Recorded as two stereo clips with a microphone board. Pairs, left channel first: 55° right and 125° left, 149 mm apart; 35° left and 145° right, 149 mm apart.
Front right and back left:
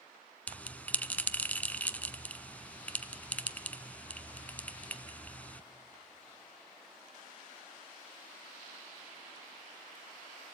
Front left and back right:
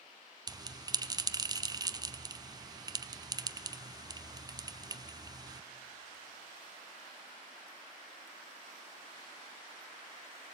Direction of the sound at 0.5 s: 125° right.